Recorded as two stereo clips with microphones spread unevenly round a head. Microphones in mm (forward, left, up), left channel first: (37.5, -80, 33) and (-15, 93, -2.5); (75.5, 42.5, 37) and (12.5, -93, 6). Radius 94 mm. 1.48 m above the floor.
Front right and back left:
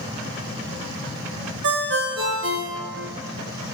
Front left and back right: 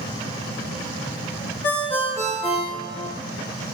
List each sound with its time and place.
1.6 s a ringtone: 140° left, 0.9 m